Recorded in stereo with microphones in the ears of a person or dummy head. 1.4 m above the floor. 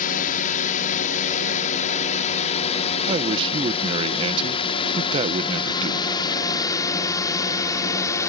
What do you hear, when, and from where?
0.0 s a drone: 45° left (ahead or behind); by 8.3 s 15° left (ahead or behind)
3.1 s a man speaking: 30° right (ahead or behind)